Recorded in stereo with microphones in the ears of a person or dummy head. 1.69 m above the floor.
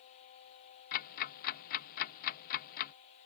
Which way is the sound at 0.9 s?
45° left (ahead or behind).